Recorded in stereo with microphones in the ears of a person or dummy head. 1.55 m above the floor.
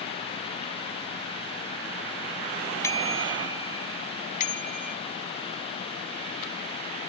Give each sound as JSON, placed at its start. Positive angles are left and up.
{"t": 2.8, "sound": "a bicycle bell", "side_deg": 15}